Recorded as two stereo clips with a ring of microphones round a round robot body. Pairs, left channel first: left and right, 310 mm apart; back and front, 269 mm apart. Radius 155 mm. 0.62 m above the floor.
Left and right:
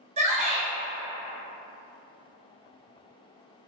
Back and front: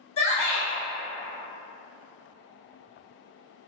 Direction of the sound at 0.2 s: 135° right.